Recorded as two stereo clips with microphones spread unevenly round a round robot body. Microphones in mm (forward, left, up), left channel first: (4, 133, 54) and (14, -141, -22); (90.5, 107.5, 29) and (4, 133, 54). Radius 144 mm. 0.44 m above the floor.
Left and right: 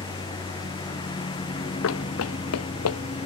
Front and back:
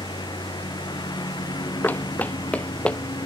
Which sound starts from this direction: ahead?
A lawn mower, at 0.0 s.